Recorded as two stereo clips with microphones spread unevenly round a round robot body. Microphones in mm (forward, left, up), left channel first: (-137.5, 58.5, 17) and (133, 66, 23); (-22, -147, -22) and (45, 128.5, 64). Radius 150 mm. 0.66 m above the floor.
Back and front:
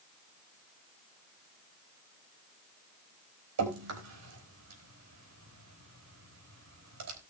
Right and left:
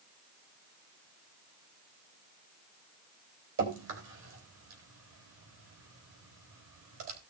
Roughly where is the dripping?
Ahead left.